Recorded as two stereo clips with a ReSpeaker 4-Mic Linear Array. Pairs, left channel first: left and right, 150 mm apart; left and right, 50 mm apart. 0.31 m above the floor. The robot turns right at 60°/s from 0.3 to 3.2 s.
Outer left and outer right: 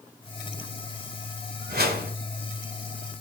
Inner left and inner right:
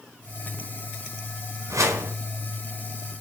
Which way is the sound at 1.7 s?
75° right (ahead or behind).